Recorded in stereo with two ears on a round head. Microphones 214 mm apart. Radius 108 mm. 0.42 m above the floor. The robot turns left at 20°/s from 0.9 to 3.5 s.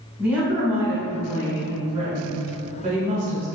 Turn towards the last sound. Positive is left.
turn(degrees=-60)